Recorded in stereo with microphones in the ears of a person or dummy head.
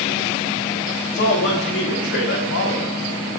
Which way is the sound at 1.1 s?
50° left (ahead or behind).